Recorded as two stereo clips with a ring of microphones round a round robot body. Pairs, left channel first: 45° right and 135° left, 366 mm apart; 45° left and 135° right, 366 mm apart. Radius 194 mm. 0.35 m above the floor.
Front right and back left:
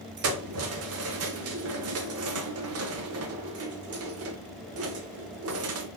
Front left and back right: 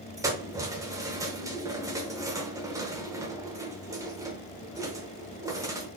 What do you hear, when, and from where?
0.2 s keys jangling: 150° left, 0.7 m